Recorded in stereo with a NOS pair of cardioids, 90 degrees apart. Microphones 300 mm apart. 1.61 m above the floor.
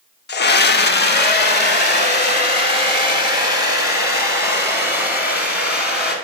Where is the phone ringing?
I don't hear a phone ringing.